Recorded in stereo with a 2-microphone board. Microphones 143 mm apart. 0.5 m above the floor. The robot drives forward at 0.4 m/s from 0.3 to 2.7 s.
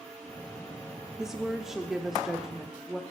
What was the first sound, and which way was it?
A woman speaking, 5° right (ahead or behind).